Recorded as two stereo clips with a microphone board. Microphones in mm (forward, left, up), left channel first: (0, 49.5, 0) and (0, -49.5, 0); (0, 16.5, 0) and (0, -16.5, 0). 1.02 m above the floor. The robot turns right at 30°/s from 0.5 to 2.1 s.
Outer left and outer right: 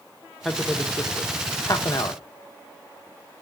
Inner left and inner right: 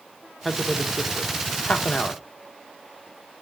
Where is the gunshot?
I don't hear a gunshot.